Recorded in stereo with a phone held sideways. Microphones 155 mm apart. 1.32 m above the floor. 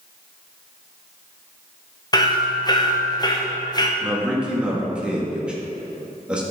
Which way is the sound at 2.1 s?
25° left (ahead or behind).